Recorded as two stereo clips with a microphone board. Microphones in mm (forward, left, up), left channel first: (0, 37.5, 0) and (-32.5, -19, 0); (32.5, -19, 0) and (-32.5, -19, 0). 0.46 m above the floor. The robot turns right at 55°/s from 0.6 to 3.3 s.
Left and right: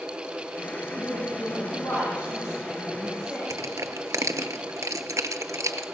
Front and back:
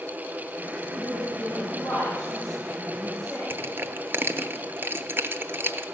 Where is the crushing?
135° right, 0.6 m.